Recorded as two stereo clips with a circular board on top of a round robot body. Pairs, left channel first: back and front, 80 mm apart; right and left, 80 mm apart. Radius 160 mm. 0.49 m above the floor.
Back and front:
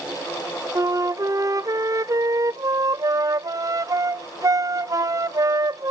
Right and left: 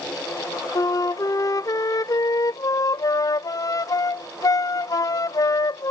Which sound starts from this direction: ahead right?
A flute, at 0.8 s.